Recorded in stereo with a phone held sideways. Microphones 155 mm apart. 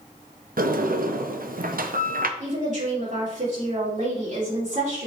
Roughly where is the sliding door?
Right.